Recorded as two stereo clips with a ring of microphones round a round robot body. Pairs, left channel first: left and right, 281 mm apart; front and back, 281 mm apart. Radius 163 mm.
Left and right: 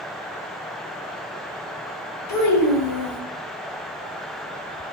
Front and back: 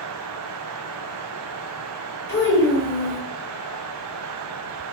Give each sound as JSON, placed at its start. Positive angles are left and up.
{"t": 2.3, "sound": "a child speaking", "azimuth_deg": 55, "distance_m": 1.4}